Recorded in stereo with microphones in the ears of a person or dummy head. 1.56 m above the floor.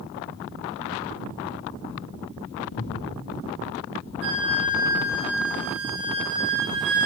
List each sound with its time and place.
2.7 s breathing: 70° left (ahead or behind), 1.8 m
4.2 s a flute: 65° right (ahead or behind), 1.7 m